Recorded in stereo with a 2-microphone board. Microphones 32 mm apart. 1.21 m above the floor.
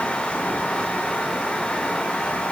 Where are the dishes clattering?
I don't hear dishes clattering.